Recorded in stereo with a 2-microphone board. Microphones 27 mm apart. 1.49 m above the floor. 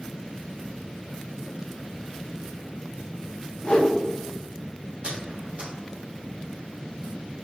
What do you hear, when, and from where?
3.6 s a whoosh: 45° left (ahead or behind), 0.6 m
5.0 s a squeak: 55° right (ahead or behind), 0.9 m